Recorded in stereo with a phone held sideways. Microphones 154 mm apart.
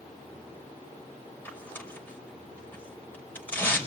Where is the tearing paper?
10° left (ahead or behind), 5.5 m.